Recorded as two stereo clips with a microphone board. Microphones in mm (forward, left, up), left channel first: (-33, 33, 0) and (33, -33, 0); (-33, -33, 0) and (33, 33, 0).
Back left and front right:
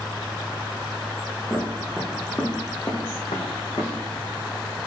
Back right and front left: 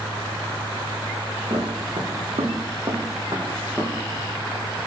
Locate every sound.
1.5 s footsteps: 40° left, 1.1 m; by 3.9 s 125° left, 1.1 m